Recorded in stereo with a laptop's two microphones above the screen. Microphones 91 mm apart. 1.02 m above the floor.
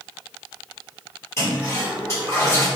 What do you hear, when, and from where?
1.4 s a toilet flushing: 30° left (ahead or behind), 1.9 m